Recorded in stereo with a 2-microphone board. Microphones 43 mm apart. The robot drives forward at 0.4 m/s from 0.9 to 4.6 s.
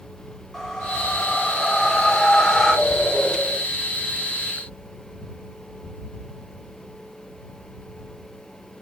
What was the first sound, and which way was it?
A whoosh, 10° left (ahead or behind).